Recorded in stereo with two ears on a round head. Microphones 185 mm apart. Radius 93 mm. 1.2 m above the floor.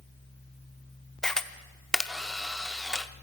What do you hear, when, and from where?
1.2 s a camera shutter: 5° left (ahead or behind), 0.8 m